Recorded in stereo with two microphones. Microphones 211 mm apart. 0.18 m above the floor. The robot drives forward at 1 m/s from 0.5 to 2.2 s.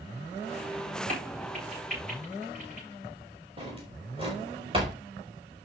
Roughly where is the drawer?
Right.